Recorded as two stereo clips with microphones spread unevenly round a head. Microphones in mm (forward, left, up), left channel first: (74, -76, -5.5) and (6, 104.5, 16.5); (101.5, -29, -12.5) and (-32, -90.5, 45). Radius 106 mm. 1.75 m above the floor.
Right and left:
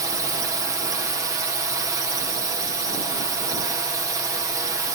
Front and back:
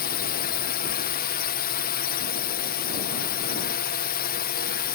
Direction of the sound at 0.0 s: 35° left.